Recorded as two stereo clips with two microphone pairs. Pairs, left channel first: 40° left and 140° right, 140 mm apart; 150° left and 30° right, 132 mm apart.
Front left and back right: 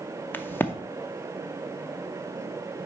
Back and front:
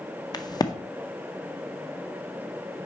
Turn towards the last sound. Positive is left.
turn(degrees=110)